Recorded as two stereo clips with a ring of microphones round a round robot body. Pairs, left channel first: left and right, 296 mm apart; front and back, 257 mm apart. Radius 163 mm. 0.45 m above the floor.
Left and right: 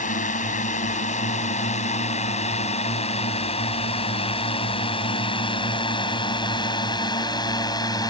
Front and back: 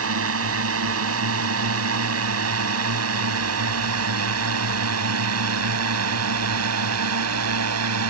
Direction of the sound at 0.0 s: 155° left.